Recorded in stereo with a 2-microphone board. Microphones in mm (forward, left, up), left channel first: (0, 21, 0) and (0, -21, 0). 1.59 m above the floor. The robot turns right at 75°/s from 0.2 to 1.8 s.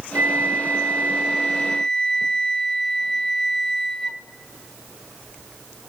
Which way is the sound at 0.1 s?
110° right.